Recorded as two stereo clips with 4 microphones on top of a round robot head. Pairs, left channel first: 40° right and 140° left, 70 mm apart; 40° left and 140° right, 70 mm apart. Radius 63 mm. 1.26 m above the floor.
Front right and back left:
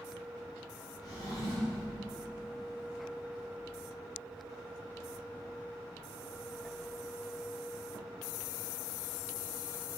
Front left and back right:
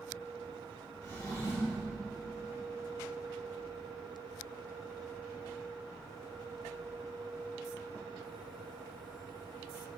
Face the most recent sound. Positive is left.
turn(degrees=-10)